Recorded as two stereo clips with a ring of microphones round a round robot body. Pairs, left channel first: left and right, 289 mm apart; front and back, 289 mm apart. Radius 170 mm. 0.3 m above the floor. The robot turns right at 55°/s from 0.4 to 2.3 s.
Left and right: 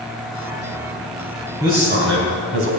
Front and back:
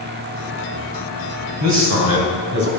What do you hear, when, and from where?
1.6 s a man speaking: 170° right, 3 m; by 2.7 s 130° right, 3 m